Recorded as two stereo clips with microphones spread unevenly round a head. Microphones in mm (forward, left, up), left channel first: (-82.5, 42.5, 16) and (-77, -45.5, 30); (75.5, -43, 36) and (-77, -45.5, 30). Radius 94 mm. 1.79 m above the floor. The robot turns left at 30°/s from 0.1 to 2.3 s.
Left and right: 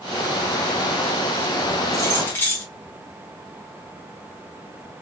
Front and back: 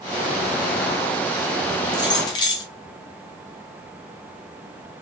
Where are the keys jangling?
40° left, 0.7 m; by 2.6 s 25° left, 0.7 m.